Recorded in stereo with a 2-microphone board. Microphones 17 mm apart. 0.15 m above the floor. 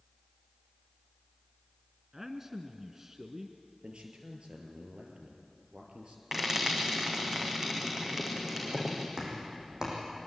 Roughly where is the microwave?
No microwave in this recording.